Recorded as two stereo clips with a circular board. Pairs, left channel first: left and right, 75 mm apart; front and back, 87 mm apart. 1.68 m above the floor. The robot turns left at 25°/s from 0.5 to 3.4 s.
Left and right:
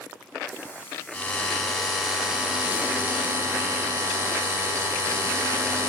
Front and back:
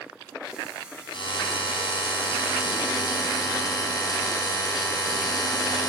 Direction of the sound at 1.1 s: 15° left.